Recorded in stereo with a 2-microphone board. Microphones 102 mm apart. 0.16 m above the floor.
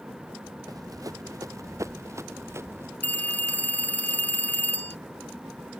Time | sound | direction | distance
0.7 | running footsteps | 35° right (ahead or behind) | ?
3.0 | a phone ringing | 15° left (ahead or behind) | ?